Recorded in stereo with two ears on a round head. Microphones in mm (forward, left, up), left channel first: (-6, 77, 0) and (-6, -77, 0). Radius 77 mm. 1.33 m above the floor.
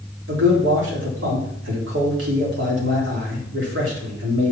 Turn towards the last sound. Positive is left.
turn(degrees=-80)